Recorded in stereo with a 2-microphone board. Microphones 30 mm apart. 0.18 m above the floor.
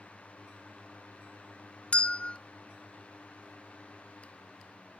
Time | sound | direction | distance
1.9 | a bell | 40° left (ahead or behind) | 0.6 m